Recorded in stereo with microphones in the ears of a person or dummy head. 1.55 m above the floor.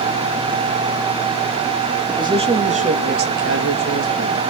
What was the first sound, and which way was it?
A man speaking, 20° right (ahead or behind).